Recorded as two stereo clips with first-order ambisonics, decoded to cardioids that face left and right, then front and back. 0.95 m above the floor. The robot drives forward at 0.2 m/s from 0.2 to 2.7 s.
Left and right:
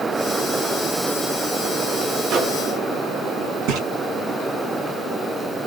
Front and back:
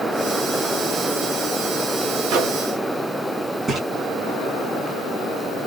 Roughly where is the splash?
Right.